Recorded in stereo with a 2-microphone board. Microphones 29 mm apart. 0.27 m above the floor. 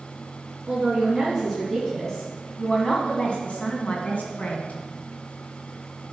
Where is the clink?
I don't hear a clink.